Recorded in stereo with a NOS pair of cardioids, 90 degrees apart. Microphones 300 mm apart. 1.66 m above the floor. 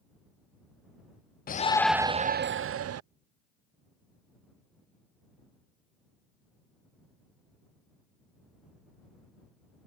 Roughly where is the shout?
Ahead left.